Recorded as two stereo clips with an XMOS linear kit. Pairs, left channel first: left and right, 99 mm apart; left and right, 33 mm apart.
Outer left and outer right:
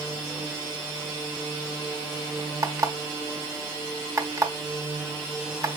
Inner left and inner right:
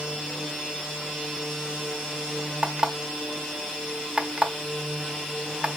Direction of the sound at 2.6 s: 30° right (ahead or behind).